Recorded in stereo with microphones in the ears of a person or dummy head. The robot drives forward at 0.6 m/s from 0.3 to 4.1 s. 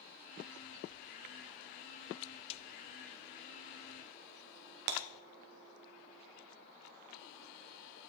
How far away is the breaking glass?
About 1.3 m.